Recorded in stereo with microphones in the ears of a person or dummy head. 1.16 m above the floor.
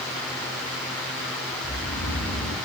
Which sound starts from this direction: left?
Snoring, at 1.6 s.